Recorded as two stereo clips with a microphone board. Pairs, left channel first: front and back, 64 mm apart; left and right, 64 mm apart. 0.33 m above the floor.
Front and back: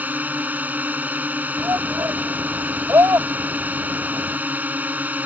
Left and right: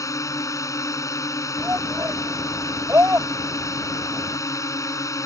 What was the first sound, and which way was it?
A drone, 120° left.